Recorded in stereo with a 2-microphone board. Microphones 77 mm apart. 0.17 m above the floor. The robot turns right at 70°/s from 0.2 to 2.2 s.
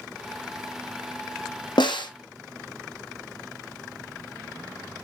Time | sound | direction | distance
1.8 | a snare drum | 75° left (ahead or behind) | 1.4 m